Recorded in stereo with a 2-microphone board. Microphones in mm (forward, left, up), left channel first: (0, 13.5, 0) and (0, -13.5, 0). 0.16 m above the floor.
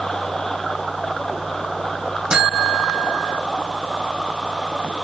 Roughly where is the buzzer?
Right.